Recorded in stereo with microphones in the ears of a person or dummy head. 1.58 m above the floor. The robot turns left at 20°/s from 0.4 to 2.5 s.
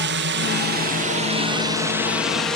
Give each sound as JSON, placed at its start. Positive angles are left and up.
{"t": 0.0, "sound": "a drone", "side_deg": -55}